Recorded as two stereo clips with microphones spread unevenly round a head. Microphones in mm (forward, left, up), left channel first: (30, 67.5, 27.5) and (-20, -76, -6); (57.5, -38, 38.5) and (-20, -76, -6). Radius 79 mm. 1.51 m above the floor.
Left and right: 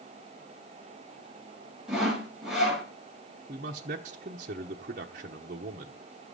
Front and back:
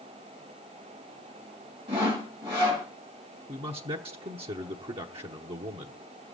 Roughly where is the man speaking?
Behind right.